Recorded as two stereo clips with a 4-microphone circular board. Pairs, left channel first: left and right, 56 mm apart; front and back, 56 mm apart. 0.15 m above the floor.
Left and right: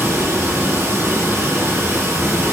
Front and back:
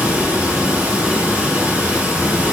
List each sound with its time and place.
0.0 s running water: 115° right, 3 m